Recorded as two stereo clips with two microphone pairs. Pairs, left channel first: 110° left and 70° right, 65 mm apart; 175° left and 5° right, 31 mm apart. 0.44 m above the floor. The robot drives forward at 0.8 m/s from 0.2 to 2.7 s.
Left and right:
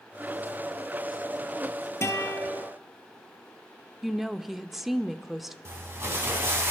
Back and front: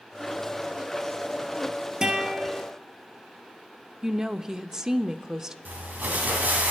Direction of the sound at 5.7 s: 20° right.